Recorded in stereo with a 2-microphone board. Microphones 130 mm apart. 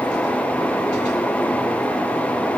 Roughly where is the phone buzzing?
I don't hear a phone buzzing.